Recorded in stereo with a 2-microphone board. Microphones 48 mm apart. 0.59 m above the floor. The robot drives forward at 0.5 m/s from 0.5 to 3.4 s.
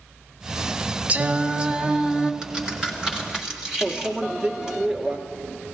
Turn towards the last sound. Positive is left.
turn(degrees=-10)  # may be behind; listen again after turning